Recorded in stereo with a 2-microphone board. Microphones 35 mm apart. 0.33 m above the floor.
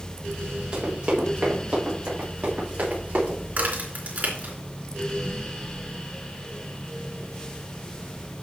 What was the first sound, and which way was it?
Running footsteps, 20° right (ahead or behind).